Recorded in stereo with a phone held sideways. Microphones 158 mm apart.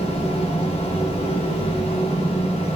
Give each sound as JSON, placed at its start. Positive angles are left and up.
{"t": 0.0, "sound": "a fan", "side_deg": 40, "distance_m": 3.0}